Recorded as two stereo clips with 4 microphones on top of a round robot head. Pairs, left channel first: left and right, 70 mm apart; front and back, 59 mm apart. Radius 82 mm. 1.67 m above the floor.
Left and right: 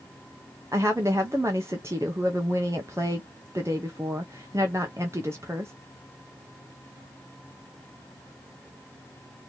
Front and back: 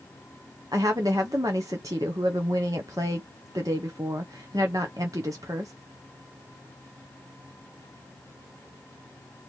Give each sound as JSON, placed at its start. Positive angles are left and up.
{"t": 0.7, "sound": "a woman speaking", "azimuth_deg": -150, "distance_m": 0.6}